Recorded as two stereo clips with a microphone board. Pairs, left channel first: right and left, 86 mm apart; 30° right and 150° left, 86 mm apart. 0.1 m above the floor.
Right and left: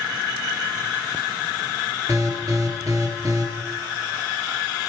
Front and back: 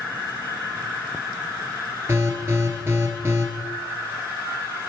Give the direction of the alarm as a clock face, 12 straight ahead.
8 o'clock.